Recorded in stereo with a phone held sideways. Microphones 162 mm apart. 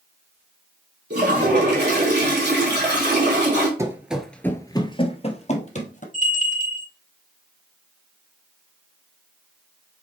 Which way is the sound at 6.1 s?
45° left (ahead or behind).